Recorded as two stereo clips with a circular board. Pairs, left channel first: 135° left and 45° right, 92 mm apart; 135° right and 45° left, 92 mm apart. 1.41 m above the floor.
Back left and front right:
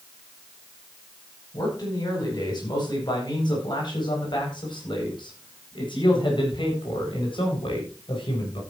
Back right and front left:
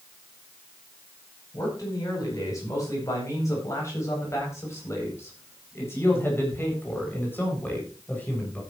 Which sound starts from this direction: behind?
A man speaking, at 1.5 s.